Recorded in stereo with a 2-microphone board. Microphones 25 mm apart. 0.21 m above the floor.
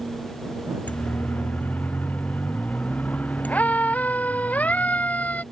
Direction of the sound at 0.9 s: 85° left.